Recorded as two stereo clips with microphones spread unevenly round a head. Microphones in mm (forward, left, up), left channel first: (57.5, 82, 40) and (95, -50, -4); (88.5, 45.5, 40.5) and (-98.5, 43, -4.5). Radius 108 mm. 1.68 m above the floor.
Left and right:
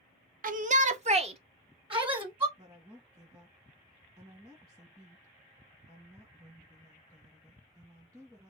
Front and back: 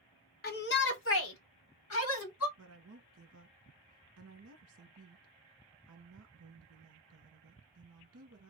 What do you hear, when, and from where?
0.4 s a shout: 45° right, 0.9 m; by 2.5 s 15° right, 1.8 m
2.6 s a woman speaking: 150° right, 1.5 m